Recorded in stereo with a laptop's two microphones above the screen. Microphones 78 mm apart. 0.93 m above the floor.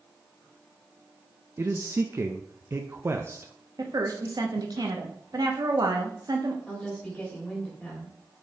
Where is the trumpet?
No trumpet in this recording.